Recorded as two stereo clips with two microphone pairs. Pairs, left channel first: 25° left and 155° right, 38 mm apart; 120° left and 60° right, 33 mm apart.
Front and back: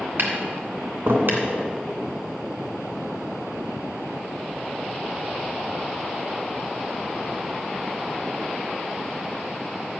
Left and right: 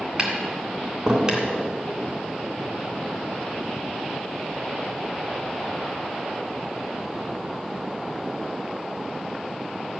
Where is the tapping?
120° right, 2.5 m.